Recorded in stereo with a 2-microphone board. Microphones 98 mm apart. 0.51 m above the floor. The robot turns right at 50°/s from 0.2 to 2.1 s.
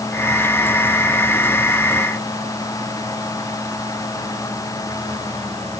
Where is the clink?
I don't hear a clink.